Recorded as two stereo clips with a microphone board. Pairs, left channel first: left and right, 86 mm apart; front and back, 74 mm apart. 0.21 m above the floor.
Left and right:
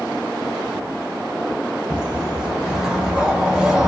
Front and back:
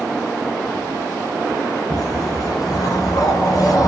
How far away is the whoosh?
About 0.6 m.